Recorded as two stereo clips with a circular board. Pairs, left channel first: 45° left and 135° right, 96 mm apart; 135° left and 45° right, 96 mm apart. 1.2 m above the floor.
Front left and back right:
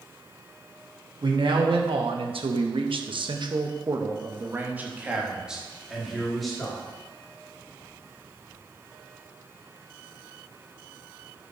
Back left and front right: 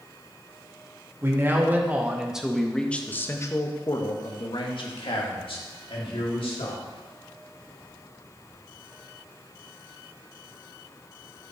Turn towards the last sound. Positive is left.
turn(degrees=130)